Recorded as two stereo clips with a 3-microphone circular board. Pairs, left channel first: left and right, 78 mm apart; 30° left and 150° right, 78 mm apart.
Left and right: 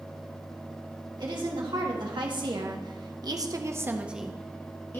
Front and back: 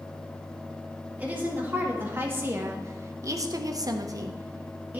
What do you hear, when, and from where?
1.2 s a woman speaking: 80° right, 2.5 m; by 5.0 s 145° left, 1.1 m